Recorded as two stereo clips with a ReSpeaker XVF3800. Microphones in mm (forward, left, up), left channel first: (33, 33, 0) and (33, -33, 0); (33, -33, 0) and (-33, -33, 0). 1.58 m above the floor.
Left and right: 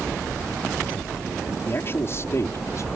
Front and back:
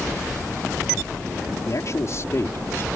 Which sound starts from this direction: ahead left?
A man speaking, at 1.7 s.